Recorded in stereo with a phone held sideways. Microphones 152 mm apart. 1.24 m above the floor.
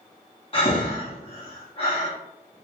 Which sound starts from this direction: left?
Breathing, at 0.5 s.